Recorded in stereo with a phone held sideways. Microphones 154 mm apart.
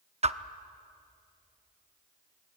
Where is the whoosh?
45° right (ahead or behind), 0.6 m.